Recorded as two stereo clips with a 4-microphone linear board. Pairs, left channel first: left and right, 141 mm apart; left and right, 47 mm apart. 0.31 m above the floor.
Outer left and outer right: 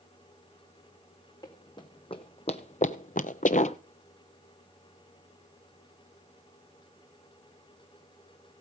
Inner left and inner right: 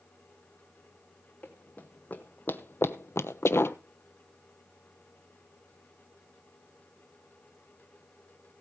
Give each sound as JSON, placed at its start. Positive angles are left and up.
{"t": 1.4, "sound": "running footsteps", "side_deg": 30, "distance_m": 1.4}